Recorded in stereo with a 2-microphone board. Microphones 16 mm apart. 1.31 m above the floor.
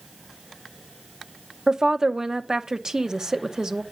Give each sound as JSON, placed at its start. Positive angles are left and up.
{"t": 1.7, "sound": "a woman speaking", "side_deg": -40, "distance_m": 0.9}